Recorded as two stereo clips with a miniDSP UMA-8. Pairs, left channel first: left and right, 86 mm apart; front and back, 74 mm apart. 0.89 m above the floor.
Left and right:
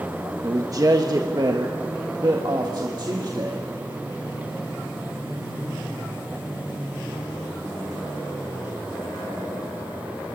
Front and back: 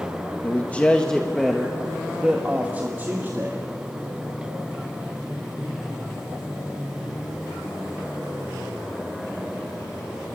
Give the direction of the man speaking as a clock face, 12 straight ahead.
2 o'clock.